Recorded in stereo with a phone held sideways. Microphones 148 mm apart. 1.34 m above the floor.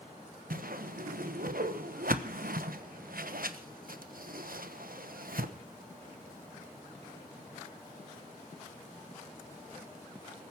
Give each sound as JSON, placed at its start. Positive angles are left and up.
{"t": 0.5, "sound": "a whoosh", "side_deg": -75, "distance_m": 1.1}